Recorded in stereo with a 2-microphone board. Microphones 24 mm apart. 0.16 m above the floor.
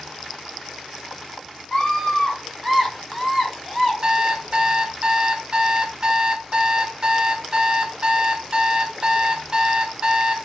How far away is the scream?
About 1.7 m.